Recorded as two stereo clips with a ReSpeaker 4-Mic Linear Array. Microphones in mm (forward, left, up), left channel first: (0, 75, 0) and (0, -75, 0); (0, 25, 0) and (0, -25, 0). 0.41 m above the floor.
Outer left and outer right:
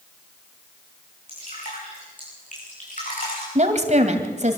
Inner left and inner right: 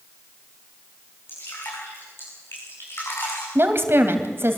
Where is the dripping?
60° left (ahead or behind), 9 m.